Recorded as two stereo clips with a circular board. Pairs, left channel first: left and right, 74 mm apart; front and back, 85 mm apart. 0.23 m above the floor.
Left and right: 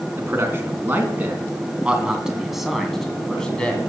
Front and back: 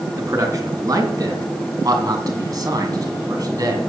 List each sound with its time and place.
0.2 s a man speaking: 140° right, 2.5 m; by 3.8 s 160° left, 2 m